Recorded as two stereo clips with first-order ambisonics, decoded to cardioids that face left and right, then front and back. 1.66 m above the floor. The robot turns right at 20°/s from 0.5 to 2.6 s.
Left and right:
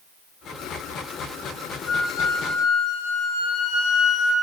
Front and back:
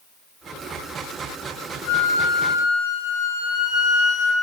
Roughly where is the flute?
Ahead left.